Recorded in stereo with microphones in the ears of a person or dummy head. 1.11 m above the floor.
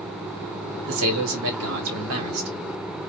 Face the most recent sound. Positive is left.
turn(degrees=-80)